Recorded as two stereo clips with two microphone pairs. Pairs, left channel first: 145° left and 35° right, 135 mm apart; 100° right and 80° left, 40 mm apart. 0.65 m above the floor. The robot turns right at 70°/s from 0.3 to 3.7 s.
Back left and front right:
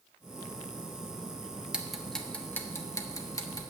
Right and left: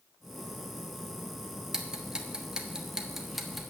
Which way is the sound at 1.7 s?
35° left.